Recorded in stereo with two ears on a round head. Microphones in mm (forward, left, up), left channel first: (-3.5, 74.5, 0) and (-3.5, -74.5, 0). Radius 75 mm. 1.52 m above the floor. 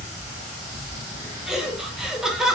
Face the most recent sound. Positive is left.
turn(degrees=-5)  # may be behind; listen again after turning